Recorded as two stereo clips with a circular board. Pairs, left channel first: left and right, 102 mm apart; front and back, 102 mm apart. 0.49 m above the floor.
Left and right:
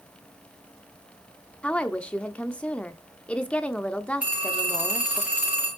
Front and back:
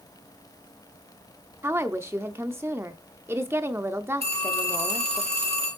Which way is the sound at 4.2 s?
165° right.